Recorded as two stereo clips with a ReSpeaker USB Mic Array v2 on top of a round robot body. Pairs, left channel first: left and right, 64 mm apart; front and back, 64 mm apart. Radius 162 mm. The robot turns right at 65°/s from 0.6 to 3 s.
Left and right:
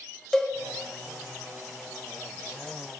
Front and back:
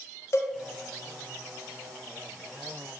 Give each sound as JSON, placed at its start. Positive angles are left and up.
{"t": 0.3, "sound": "a cowbell", "azimuth_deg": 15, "distance_m": 1.0}